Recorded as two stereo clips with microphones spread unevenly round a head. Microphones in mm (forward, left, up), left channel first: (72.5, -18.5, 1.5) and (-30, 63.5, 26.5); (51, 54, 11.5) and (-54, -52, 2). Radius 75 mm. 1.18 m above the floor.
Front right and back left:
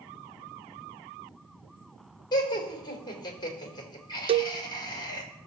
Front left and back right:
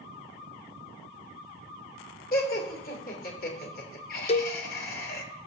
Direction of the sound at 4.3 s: 95° left.